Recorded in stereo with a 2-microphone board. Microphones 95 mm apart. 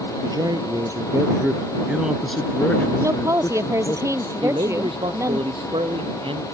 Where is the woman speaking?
35° right (ahead or behind).